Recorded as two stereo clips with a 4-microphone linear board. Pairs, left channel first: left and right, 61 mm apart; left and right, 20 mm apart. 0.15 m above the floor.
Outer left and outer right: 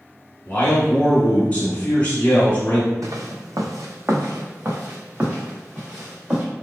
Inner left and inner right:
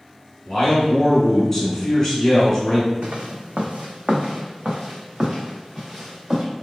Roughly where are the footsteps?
Right.